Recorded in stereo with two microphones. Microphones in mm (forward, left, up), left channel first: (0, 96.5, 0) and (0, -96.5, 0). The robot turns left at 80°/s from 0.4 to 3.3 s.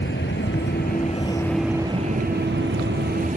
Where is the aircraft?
70° left (ahead or behind); by 3.4 s 40° right (ahead or behind).